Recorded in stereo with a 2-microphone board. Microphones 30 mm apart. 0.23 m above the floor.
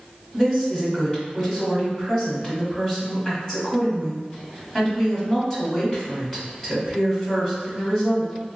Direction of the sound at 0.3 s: 20° left (ahead or behind).